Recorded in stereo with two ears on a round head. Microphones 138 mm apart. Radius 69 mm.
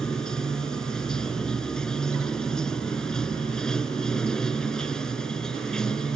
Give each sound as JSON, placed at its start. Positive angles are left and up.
{"t": 0.0, "sound": "running water", "side_deg": 5}